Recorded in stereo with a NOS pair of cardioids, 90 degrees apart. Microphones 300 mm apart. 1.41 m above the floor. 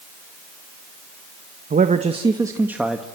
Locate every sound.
1.7 s a man speaking: 30° right, 1.4 m; by 3.0 s straight ahead, 1.9 m